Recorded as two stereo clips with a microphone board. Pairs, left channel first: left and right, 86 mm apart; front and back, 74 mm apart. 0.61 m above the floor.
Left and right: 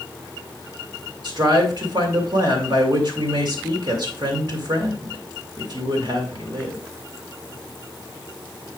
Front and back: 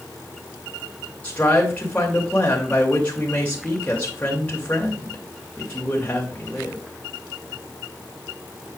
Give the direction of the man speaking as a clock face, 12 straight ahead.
2 o'clock.